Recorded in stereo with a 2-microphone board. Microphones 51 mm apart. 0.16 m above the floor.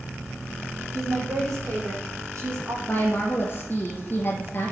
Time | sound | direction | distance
0.9 | a woman speaking | 70° right (ahead or behind) | 7 m
2.9 | a woman speaking | 35° left (ahead or behind) | 3 m